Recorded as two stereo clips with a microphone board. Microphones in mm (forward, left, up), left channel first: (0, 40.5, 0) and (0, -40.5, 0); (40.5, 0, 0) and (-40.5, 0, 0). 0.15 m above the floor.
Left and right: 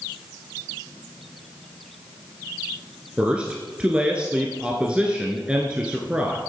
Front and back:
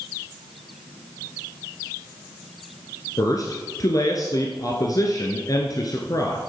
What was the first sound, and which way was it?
A man speaking, 15° right.